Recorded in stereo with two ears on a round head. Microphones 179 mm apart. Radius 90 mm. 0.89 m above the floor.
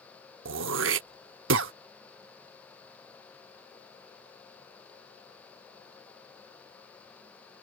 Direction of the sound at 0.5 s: 65° right (ahead or behind).